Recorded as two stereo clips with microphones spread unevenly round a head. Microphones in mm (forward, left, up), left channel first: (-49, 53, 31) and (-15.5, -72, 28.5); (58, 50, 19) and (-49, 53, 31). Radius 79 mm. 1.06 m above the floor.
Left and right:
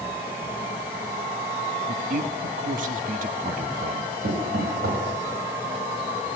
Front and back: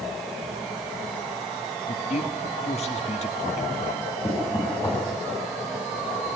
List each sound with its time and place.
1.9 s a man speaking: 40° right, 1.2 m
4.2 s knocking: 65° right, 6 m